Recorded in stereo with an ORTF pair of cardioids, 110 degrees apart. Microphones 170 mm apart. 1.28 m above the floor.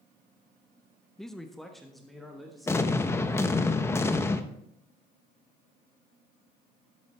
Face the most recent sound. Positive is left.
turn(degrees=15)